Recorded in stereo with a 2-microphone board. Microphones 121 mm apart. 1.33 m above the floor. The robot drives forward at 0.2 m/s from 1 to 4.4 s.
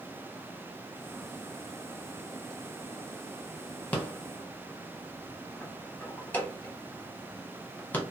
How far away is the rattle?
About 0.7 m.